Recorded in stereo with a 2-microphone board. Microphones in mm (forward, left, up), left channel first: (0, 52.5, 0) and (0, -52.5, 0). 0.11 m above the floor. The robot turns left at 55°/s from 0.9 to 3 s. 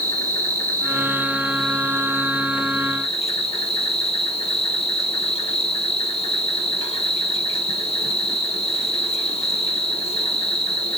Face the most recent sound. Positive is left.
turn(degrees=100)